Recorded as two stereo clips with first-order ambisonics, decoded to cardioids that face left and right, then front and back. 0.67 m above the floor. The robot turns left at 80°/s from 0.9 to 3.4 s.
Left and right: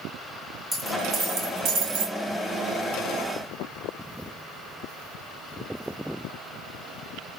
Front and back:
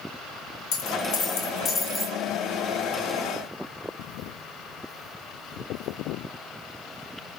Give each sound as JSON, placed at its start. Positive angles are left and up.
{"t": 0.7, "sound": "a dropped coin", "azimuth_deg": -10, "distance_m": 2.5}